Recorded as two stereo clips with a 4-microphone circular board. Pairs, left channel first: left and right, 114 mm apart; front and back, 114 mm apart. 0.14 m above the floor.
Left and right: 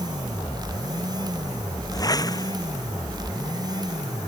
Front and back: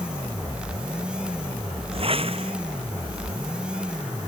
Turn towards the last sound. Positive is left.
turn(degrees=145)